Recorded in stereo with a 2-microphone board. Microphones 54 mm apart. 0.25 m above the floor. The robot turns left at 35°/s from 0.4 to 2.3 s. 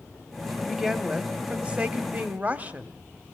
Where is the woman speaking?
15° right, 1.1 m; by 2.9 s 75° right, 1.1 m.